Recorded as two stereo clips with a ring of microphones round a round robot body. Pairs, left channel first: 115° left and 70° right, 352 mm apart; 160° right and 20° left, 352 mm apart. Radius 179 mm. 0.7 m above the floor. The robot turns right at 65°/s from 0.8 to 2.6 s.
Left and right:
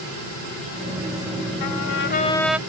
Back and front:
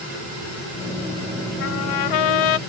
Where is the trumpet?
145° left; by 2.6 s 150° right.